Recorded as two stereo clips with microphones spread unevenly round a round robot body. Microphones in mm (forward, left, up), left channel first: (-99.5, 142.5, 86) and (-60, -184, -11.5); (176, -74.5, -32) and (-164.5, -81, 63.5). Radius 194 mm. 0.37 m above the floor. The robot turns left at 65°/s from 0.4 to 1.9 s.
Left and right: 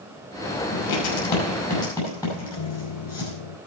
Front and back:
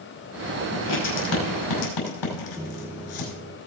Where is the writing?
85° left, 5.5 m; by 3.3 s 10° left, 5.5 m.